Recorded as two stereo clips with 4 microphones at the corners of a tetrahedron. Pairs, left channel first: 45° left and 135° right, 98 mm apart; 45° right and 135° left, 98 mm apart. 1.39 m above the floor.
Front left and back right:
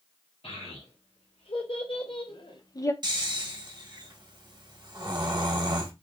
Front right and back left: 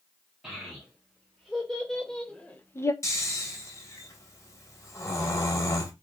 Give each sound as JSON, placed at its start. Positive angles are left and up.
{"t": 0.4, "sound": "a child speaking", "azimuth_deg": 50, "distance_m": 2.0}
{"t": 3.0, "sound": "snoring", "azimuth_deg": -100, "distance_m": 0.9}